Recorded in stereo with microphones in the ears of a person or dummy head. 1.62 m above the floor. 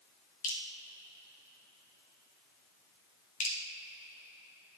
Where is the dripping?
50° left (ahead or behind), 1.1 m.